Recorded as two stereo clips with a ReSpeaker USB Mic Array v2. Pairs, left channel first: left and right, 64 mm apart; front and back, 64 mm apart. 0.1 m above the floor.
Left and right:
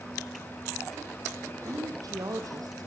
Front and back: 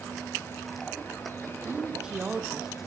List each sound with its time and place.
1.6 s a woman speaking: 105° right, 4 m; by 2.9 s 95° right, 3 m